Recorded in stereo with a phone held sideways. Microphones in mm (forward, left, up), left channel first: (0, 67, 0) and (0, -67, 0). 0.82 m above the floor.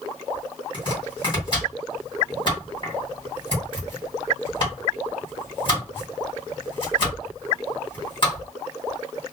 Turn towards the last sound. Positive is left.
turn(degrees=40)  # may be behind; listen again after turning